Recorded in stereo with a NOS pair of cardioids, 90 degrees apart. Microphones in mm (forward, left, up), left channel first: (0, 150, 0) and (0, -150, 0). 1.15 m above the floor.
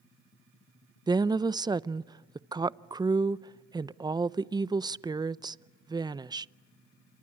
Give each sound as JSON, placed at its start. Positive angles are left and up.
{"t": 1.1, "sound": "a woman speaking", "azimuth_deg": -15, "distance_m": 0.6}